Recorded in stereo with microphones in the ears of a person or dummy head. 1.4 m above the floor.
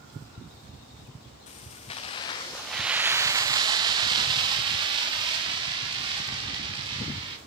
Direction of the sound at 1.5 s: 30° left (ahead or behind).